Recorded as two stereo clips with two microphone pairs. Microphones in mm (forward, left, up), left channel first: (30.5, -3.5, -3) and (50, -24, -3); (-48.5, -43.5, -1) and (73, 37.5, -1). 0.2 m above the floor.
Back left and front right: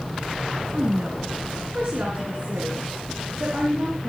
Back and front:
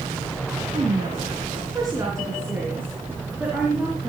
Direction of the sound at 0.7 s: 15° right.